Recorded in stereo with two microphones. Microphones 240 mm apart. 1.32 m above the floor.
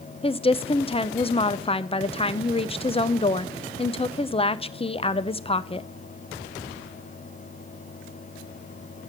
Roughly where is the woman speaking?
Left.